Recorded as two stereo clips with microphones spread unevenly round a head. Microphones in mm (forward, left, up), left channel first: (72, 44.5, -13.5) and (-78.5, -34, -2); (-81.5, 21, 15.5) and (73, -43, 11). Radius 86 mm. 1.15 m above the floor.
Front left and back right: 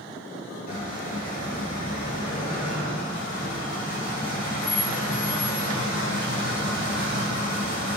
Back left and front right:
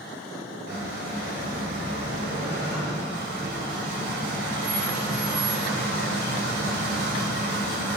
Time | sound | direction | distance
0.7 | a squeak | straight ahead | 1.6 m